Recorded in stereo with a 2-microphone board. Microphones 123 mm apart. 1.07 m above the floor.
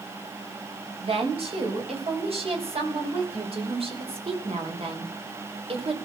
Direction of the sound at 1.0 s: 55° right (ahead or behind).